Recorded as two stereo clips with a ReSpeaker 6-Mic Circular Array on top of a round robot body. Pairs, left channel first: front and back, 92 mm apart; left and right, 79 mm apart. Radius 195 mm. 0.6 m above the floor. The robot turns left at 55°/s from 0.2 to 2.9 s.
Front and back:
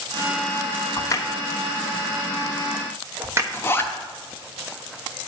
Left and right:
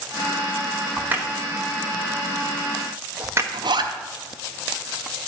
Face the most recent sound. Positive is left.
turn(degrees=-65)